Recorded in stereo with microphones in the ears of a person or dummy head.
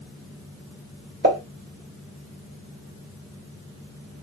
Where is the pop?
55° right (ahead or behind), 1.9 m.